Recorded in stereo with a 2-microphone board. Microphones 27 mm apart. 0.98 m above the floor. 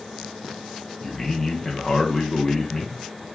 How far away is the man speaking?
About 0.6 m.